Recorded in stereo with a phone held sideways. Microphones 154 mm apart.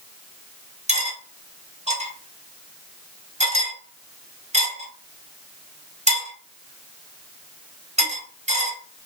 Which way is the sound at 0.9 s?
50° right (ahead or behind).